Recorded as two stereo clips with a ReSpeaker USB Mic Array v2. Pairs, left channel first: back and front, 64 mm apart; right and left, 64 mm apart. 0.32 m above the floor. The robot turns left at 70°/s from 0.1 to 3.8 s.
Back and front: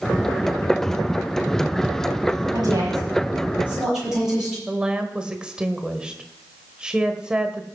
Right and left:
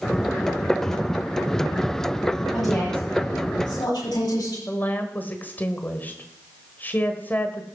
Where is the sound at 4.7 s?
65° right, 1.3 m.